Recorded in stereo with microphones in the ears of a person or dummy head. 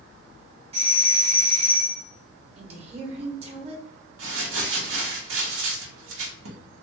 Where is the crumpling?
80° right, 1.0 m.